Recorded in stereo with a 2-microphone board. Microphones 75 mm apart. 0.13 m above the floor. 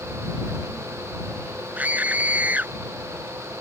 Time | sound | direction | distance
1.8 | a scream | 20° right (ahead or behind) | ?